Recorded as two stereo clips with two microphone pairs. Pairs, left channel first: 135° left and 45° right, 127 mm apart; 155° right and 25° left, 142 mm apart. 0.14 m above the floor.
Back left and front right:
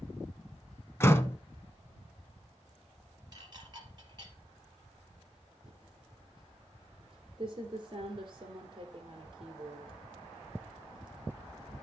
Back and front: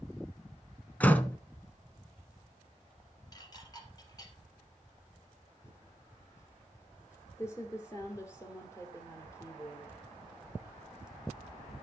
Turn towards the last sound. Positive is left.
turn(degrees=-85)